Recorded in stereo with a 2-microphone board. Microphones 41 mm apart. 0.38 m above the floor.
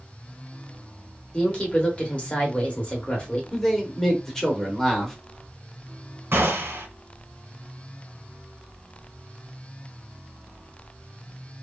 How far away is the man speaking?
About 0.9 m.